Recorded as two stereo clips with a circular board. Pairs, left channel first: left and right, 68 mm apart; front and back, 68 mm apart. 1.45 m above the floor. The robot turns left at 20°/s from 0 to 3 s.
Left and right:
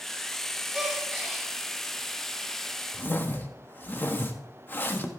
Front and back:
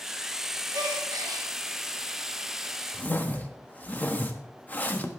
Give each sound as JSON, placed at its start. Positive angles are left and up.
{"t": 0.7, "sound": "a gasp", "azimuth_deg": -170, "distance_m": 2.5}
{"t": 2.9, "sound": "a whoosh", "azimuth_deg": 50, "distance_m": 1.0}